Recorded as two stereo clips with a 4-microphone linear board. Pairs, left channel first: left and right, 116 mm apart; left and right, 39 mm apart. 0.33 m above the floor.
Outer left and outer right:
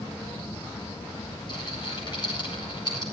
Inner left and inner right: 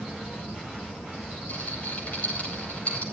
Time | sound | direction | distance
1.5 | a rattle | 40° left (ahead or behind) | 9 m